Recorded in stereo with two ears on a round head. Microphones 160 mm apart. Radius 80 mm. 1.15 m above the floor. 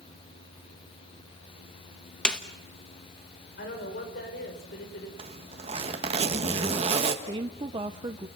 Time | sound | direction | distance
2.2 | a snare drum | 5° left (ahead or behind) | 1.0 m
3.6 | a woman speaking | 55° left (ahead or behind) | 4.5 m
5.2 | a zipper | 35° right (ahead or behind) | 1.5 m
7.2 | a woman speaking | 25° right (ahead or behind) | 0.7 m